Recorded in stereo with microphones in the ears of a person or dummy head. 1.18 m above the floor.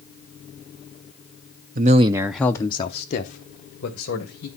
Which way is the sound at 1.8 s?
40° right (ahead or behind).